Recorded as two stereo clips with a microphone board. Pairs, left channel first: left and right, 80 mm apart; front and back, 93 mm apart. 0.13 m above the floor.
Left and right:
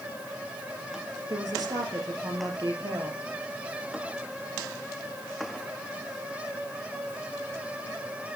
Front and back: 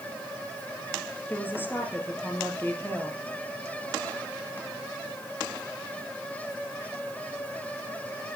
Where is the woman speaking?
65° right, 2.5 m.